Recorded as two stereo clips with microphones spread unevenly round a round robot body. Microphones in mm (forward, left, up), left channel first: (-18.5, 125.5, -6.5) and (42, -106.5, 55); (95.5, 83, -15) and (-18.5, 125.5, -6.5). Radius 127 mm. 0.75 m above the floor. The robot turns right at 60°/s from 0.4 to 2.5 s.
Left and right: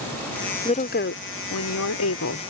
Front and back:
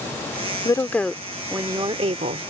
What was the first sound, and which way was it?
A woman speaking, 40° left.